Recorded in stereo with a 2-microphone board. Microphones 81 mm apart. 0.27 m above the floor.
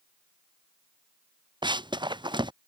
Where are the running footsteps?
70° right (ahead or behind).